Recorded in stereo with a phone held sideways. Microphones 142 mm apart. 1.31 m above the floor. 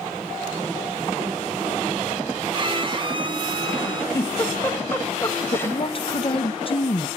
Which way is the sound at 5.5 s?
40° left (ahead or behind).